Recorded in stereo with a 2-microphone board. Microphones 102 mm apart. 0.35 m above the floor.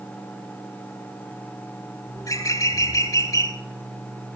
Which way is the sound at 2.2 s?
35° left (ahead or behind).